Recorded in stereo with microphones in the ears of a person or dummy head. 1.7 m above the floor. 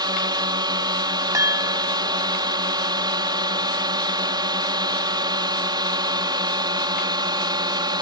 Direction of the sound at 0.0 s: 25° right (ahead or behind).